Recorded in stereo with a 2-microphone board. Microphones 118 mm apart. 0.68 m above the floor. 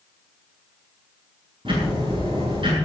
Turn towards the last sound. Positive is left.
turn(degrees=-50)  # may be behind; listen again after turning